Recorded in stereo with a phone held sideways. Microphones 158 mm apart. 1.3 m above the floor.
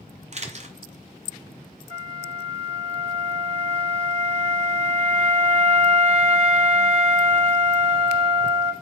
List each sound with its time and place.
0.3 s a camera shutter: 45° right (ahead or behind), 0.7 m
1.9 s a flute: 45° right (ahead or behind), 1.3 m